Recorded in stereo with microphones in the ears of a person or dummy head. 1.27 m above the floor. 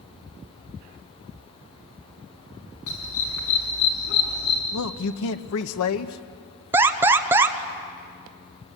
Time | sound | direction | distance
2.9 | a dog barking | 75° left (ahead or behind) | 4.5 m
4.7 | a man speaking | 75° left (ahead or behind) | 1.1 m
6.7 | an alarm | 15° right (ahead or behind) | 0.9 m